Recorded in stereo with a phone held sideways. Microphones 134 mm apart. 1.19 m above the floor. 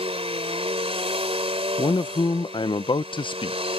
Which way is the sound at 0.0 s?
45° right (ahead or behind).